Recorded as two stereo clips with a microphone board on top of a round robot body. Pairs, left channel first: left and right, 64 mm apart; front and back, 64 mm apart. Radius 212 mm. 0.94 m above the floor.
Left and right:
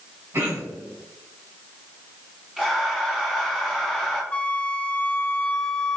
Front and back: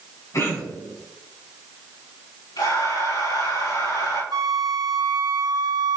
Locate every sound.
0.3 s throat clearing: 40° right, 3.5 m
2.6 s breathing: 10° right, 5.5 m
4.3 s a flute: 160° left, 0.8 m